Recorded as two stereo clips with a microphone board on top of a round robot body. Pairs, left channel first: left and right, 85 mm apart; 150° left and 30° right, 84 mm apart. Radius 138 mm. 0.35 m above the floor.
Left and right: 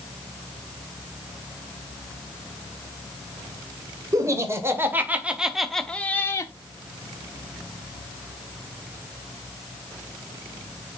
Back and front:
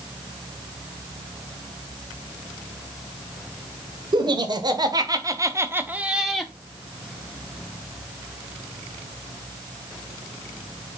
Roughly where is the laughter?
Ahead right.